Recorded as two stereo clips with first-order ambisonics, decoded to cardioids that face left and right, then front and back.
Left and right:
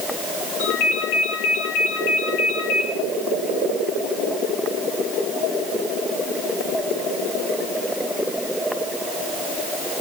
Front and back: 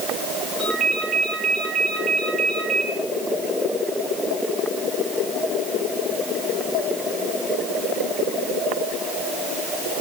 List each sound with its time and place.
0.6 s a ringtone: 105° left, 7.5 m